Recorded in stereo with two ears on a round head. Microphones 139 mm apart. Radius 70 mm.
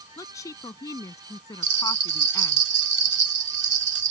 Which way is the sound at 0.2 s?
20° left (ahead or behind).